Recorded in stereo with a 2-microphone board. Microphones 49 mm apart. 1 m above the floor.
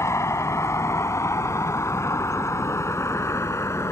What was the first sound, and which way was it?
A vehicle, 85° left.